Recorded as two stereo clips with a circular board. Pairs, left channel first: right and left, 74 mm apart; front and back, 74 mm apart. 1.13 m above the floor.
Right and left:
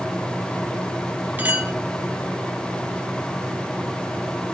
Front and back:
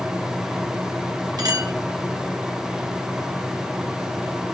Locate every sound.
1.4 s a clink: 155° left, 1.4 m